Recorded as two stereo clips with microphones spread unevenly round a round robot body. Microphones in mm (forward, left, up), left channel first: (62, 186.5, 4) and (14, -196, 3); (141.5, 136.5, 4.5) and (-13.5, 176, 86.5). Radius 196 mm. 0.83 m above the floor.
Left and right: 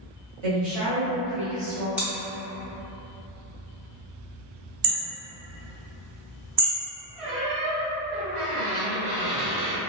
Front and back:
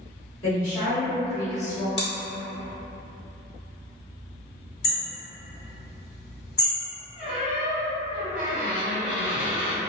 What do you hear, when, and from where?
0.4 s a woman speaking: 45° right, 1.7 m; by 1.9 s 5° right, 1.0 m
2.0 s chewing: 10° right, 0.9 m
4.8 s hammering: 60° right, 1.5 m
7.2 s a squeak: 115° right, 1.3 m